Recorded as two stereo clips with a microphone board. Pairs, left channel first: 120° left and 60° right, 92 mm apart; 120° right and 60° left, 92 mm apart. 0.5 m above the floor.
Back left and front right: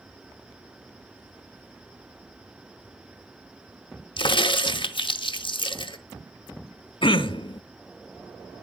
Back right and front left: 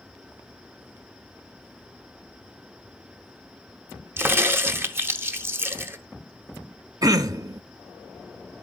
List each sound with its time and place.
4.2 s a crack: 120° left, 0.7 m
7.0 s throat clearing: 105° left, 0.6 m